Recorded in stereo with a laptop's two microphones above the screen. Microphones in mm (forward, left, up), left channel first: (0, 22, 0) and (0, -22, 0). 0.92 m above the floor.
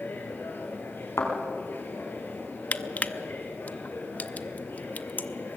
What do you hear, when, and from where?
0.0 s a machine running: 50° left (ahead or behind), 3 m
1.2 s a thud: 85° left, 4.5 m
2.7 s crushing: 35° left (ahead or behind), 0.6 m